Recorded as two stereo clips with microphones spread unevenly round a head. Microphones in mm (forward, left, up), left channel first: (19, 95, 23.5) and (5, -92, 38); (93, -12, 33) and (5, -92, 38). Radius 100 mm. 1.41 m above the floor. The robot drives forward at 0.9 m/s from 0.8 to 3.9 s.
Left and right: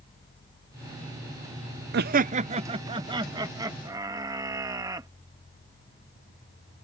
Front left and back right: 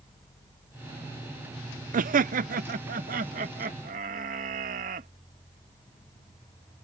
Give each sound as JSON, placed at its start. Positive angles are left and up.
{"t": 1.9, "sound": "laughter", "azimuth_deg": -135}